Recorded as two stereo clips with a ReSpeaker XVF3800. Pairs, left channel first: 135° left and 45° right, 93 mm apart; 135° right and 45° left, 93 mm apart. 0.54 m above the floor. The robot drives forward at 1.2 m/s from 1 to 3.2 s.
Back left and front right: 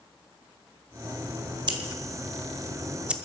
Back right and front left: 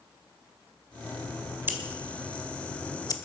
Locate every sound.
1.7 s scissors: 20° right, 1.7 m; by 3.1 s 120° right, 0.9 m